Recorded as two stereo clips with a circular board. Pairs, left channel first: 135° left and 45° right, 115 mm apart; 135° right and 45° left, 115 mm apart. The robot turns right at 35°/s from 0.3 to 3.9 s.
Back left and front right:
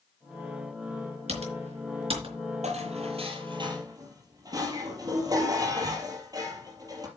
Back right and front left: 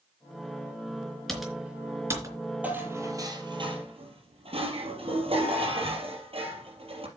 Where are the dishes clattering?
35° right, 3.5 m; by 7.1 s 10° left, 3.5 m.